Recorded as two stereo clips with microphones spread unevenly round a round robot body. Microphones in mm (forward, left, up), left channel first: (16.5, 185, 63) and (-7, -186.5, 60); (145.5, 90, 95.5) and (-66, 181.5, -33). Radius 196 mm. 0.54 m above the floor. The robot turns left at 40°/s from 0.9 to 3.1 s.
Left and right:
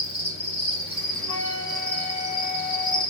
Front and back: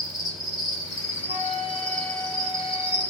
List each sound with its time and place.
0.0 s an insect: 150° right, 1.5 m; by 3.1 s 120° left, 1.5 m
1.3 s a flute: 135° right, 1.8 m; by 3.0 s 155° left, 1.8 m